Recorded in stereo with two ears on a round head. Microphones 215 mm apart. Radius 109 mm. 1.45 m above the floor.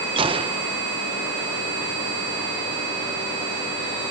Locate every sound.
0.2 s a gunshot: 20° right (ahead or behind)